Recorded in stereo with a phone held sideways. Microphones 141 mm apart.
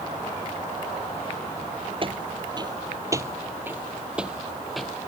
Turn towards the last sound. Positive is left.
turn(degrees=0)  # may be behind; listen again after turning